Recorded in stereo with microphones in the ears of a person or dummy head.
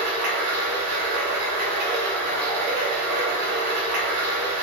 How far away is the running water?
About 3 m.